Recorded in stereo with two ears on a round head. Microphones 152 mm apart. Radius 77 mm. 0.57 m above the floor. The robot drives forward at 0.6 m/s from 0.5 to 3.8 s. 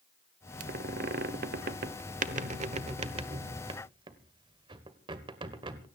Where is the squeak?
55° right (ahead or behind), 1.2 m; by 5.8 s 30° right (ahead or behind), 1.8 m.